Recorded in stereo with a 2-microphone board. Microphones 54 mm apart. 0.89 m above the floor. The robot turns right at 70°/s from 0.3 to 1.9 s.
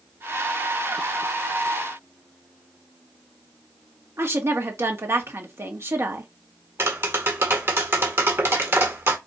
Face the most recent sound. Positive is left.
turn(degrees=-45)  # may be behind; listen again after turning